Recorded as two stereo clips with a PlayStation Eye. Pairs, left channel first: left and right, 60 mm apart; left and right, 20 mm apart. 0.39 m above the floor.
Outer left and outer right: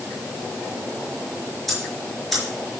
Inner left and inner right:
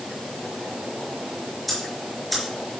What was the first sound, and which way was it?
Ticking, centre (ahead or behind).